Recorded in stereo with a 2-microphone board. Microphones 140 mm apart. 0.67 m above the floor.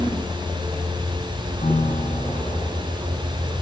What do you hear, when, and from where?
1.6 s a piano: 70° left (ahead or behind), 2.5 m